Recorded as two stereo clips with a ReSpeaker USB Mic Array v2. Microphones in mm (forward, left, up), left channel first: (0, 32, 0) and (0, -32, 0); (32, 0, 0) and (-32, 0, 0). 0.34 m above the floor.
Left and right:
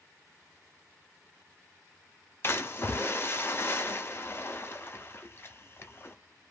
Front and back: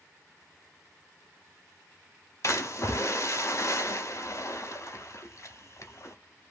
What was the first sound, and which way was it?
A splash, 40° left.